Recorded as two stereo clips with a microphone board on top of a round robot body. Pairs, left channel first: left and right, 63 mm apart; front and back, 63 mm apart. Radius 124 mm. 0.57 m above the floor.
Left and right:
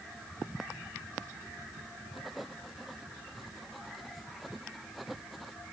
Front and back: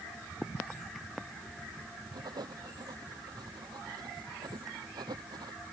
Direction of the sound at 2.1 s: Straight behind.